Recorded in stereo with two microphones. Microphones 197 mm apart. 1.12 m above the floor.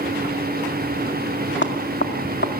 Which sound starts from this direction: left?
Knocking, at 1.6 s.